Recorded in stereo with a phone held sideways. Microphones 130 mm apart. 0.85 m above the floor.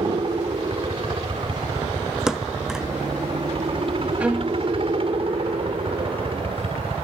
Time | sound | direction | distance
0.0 | a helicopter | 40° right (ahead or behind) | ?
2.3 | a thud | 5° right (ahead or behind) | ?
4.2 | a violin | 10° right (ahead or behind) | ?